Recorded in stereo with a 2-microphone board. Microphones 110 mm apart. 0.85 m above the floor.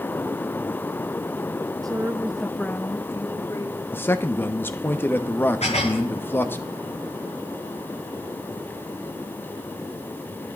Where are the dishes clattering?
85° left, 8.5 m.